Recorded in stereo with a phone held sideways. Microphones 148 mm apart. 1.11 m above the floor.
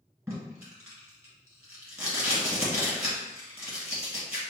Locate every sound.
0.3 s tape being pulled: 20° right (ahead or behind), 1.7 m